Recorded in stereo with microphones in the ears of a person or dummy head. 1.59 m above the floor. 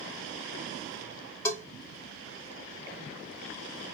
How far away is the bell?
About 1.6 m.